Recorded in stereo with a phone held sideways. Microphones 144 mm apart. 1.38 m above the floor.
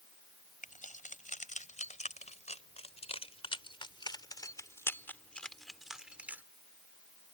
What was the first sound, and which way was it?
Keys jangling, 65° left (ahead or behind).